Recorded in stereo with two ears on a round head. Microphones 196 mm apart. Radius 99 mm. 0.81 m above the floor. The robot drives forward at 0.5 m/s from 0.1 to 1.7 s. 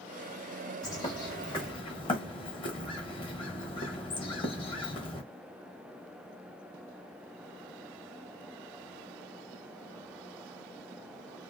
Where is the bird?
20° left (ahead or behind), 1.0 m; by 5.2 s 25° left (ahead or behind), 0.8 m.